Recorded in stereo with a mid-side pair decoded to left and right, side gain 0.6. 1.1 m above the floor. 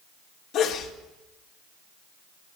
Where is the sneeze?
60° left, 3 m.